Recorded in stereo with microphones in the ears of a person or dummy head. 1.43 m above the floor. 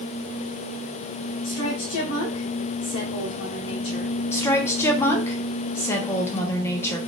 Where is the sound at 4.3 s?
20° left (ahead or behind), 1.0 m.